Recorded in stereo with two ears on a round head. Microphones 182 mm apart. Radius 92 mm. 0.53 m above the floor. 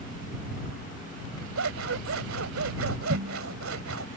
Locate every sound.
1.6 s scissors: 75° right (ahead or behind)